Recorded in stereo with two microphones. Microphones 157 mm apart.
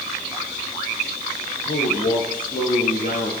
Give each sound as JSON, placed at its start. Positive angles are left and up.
{"t": 1.6, "sound": "a man speaking", "side_deg": 60, "distance_m": 9.0}